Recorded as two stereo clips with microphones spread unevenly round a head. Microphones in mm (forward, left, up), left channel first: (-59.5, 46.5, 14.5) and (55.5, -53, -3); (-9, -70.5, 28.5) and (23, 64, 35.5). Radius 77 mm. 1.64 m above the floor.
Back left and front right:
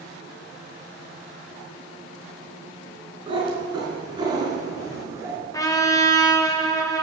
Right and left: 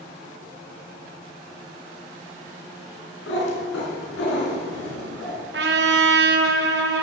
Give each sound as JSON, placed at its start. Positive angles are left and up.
{"t": 3.3, "sound": "a cat meowing", "azimuth_deg": -105, "distance_m": 3.5}
{"t": 5.5, "sound": "a trumpet", "azimuth_deg": 75, "distance_m": 1.2}